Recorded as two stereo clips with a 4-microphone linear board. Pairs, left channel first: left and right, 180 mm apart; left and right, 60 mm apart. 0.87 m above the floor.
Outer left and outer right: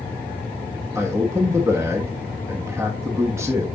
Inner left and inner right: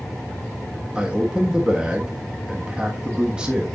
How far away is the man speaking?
About 1.3 m.